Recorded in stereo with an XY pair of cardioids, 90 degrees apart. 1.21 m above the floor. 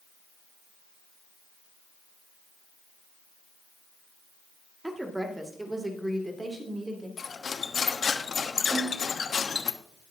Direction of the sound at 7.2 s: 45° left.